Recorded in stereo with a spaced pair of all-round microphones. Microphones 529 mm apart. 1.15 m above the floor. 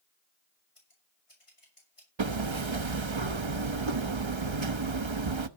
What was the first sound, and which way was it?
Scissors, 70° left (ahead or behind).